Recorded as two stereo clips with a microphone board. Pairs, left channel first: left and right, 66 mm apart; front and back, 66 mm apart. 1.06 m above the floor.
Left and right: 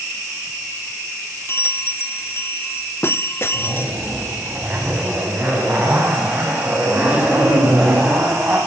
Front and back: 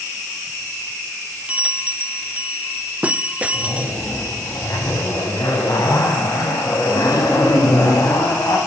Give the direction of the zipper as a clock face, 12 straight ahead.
1 o'clock.